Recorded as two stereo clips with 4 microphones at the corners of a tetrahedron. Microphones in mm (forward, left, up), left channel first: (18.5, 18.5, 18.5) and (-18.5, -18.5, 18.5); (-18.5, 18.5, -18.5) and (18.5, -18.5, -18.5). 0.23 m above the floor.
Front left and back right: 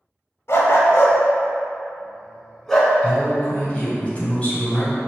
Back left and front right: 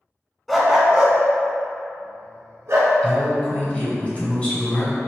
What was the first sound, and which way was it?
A dog barking, 45° left.